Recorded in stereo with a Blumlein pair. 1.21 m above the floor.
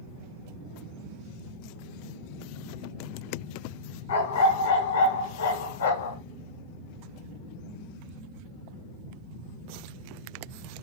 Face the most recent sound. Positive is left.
turn(degrees=65)